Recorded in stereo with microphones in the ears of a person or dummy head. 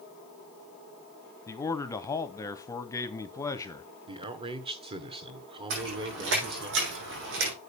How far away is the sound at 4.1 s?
About 1.3 m.